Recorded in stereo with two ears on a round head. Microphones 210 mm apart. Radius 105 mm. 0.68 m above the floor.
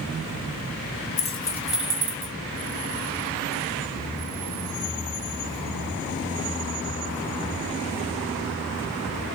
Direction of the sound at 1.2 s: 30° left (ahead or behind).